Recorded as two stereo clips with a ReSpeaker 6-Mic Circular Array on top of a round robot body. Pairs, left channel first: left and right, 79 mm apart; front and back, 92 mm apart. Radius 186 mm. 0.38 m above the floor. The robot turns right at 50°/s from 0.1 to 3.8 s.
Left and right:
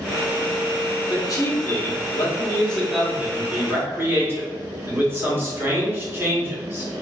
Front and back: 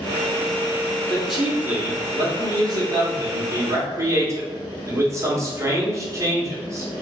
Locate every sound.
1.1 s a man speaking: 85° left, 1.6 m; by 6.9 s 140° right, 1.6 m